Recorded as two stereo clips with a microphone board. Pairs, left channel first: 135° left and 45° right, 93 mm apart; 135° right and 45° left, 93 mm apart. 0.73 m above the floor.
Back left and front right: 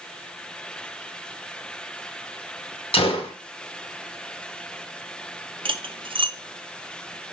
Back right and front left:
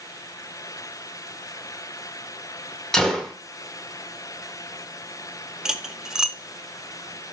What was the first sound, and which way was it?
A gunshot, 140° left.